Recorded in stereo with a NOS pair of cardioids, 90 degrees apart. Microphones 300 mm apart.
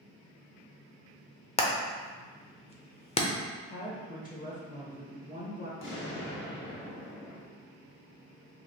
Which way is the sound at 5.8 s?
40° left.